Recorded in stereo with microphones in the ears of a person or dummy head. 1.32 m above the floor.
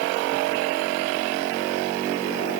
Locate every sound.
Only background noise.